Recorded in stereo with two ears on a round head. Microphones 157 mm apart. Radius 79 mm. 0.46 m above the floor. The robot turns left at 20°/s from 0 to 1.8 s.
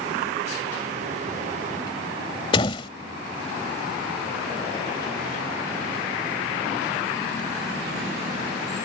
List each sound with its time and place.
2.5 s a door slam: 30° left (ahead or behind)